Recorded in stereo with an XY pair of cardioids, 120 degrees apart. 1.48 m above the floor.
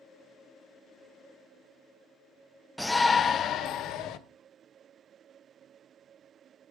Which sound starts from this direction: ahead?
A shout, at 2.8 s.